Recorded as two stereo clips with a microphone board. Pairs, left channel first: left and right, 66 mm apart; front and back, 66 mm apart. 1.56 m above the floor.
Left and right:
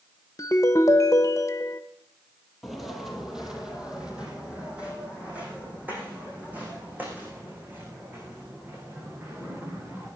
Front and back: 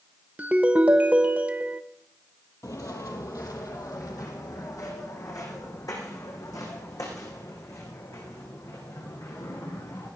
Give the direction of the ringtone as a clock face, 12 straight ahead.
8 o'clock.